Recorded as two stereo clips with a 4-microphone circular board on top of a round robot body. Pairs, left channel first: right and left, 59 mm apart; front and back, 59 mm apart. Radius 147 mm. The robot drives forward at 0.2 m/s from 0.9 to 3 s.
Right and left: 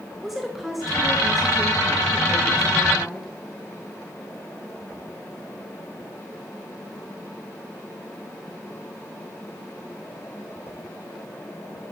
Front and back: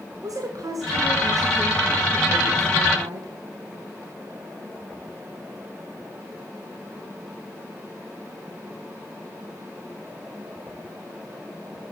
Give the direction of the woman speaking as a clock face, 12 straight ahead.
6 o'clock.